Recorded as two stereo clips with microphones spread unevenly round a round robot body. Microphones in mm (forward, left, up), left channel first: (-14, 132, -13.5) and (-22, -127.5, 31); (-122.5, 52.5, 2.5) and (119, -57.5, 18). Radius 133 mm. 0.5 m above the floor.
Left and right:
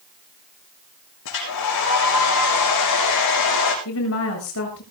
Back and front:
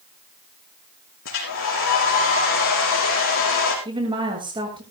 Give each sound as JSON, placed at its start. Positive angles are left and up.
{"t": 1.2, "sound": "a hair dryer", "azimuth_deg": 110, "distance_m": 6.0}
{"t": 3.9, "sound": "a woman speaking", "azimuth_deg": 50, "distance_m": 8.0}